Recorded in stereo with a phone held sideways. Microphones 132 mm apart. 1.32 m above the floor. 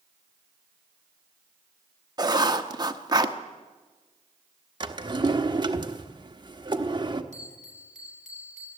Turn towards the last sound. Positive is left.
turn(degrees=-60)  # may be behind; listen again after turning